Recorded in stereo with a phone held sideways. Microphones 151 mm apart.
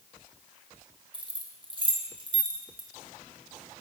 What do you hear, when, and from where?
1.1 s keys jangling: 35° right (ahead or behind), 1.1 m